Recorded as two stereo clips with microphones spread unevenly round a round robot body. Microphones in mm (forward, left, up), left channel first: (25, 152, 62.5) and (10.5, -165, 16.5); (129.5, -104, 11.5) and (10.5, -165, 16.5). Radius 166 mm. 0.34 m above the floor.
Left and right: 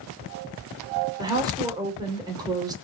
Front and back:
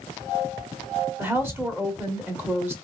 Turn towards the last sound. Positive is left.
turn(degrees=-105)